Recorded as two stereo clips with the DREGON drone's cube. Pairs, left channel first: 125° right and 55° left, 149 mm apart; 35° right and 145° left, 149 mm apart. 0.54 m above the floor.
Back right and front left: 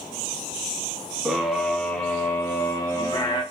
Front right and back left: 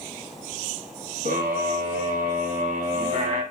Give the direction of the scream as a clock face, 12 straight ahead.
7 o'clock.